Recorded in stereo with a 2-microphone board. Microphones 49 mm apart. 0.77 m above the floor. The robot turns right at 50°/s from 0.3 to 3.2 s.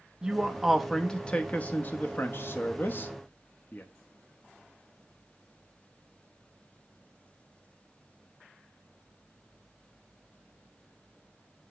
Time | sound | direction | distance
0.2 | a man speaking | 15° right (ahead or behind) | 0.7 m